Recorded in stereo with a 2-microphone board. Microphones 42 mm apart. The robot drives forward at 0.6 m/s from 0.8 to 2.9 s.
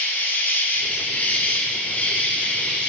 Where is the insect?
55° left (ahead or behind), 1.3 m; by 2.9 s 30° left (ahead or behind), 2.5 m.